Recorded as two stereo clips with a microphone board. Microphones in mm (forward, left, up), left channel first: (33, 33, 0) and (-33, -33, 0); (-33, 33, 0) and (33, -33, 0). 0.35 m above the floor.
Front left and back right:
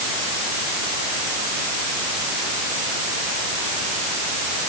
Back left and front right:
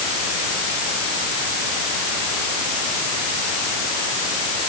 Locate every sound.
Only background noise.